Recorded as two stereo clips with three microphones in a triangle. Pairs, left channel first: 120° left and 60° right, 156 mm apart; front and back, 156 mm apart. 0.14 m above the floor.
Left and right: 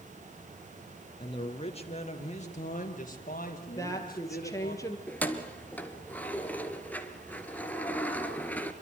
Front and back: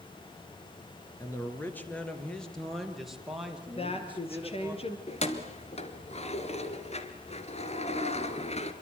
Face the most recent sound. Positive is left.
turn(degrees=40)